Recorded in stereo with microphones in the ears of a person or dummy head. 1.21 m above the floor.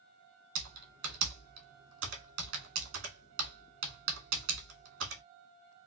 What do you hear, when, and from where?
0.6 s typing on a keyboard: 70° right (ahead or behind), 1.5 m